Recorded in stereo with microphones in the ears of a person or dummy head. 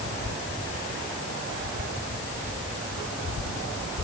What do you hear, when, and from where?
Only background noise.